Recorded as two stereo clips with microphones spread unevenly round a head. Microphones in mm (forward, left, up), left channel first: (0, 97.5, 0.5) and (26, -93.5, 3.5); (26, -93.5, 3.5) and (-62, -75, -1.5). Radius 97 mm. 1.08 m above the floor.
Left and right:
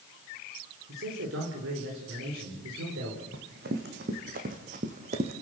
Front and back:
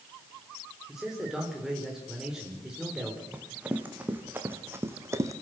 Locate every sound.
0.9 s a man speaking: 105° right, 4.5 m
3.3 s running footsteps: 115° right, 4 m; by 5.3 s 140° right, 2 m